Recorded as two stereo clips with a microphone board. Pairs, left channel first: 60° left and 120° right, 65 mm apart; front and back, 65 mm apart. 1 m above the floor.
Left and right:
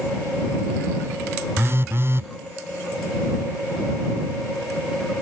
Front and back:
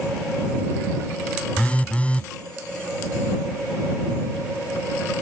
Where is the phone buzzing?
70° right.